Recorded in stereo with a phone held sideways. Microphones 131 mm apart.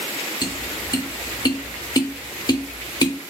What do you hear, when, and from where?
0.4 s tapping: 30° left (ahead or behind), 0.5 m